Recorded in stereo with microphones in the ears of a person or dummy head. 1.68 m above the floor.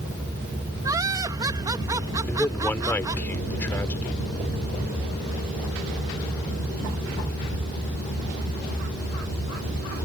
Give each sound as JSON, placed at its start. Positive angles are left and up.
{"t": 0.8, "sound": "laughter", "side_deg": -20}
{"t": 2.3, "sound": "a man speaking", "side_deg": 10}